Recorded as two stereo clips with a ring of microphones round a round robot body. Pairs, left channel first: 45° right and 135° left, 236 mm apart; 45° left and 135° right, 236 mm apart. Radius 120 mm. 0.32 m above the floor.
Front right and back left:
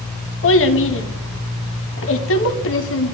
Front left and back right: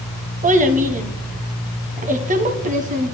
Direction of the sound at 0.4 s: 80° right.